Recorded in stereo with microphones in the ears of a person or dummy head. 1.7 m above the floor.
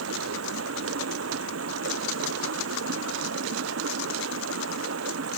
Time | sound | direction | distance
0.0 | running water | 85° right | ?